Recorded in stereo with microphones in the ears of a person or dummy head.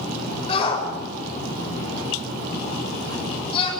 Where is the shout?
30° left (ahead or behind), 6 m.